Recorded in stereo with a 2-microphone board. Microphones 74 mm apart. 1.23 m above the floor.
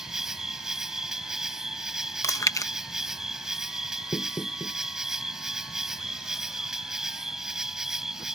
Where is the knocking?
45° left (ahead or behind).